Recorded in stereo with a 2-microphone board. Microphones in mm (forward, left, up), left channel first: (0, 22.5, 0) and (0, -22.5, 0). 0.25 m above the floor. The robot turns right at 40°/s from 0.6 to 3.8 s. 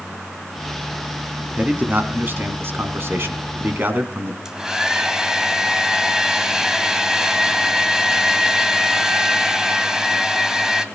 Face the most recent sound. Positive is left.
turn(degrees=-10)  # may be behind; listen again after turning